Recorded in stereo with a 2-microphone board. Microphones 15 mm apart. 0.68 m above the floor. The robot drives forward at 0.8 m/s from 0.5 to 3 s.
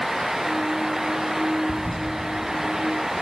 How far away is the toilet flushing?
About 7.5 m.